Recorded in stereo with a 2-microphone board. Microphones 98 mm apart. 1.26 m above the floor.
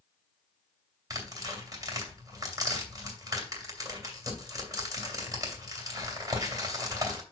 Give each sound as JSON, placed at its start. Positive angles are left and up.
{"t": 1.1, "sound": "tearing paper", "side_deg": -35, "distance_m": 2.5}